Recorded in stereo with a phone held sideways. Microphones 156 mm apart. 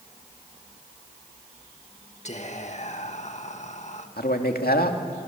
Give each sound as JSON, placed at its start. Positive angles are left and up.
{"t": 2.2, "sound": "whispering", "side_deg": 50, "distance_m": 1.9}
{"t": 4.2, "sound": "a man speaking", "side_deg": 80, "distance_m": 2.5}